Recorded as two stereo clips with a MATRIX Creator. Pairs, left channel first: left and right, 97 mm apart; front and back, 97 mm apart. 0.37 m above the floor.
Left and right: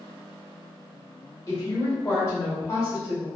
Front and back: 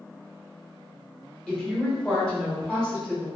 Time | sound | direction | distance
1.5 | a woman speaking | 75° left | 1.1 m